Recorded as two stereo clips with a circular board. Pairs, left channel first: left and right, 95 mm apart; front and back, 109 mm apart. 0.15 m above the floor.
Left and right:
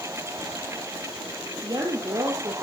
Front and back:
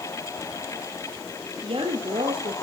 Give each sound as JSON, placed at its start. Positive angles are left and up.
{"t": 1.6, "sound": "a woman speaking", "azimuth_deg": -140, "distance_m": 3.5}